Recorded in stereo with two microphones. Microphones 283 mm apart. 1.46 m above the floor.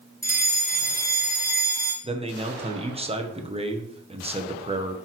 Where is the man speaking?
20° right (ahead or behind), 1.2 m.